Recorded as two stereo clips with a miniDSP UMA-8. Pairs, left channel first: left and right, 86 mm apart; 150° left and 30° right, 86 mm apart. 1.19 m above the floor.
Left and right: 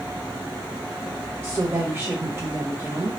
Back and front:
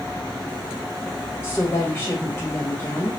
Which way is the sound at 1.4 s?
150° right.